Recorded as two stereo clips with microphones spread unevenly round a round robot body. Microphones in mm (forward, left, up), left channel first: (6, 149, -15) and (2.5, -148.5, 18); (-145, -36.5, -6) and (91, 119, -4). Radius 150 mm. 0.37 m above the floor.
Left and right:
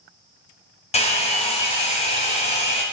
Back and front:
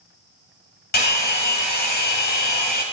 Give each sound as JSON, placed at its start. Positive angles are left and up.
{"t": 0.9, "sound": "a hair dryer", "azimuth_deg": 155, "distance_m": 1.2}